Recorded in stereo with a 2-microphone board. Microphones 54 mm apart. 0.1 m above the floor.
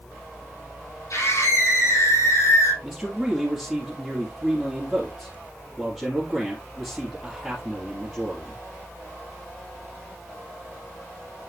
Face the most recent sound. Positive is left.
turn(degrees=-5)  # may be behind; listen again after turning